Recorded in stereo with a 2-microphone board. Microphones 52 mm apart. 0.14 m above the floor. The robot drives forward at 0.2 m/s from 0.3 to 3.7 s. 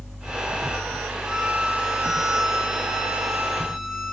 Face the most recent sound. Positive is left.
turn(degrees=-10)  # may be behind; listen again after turning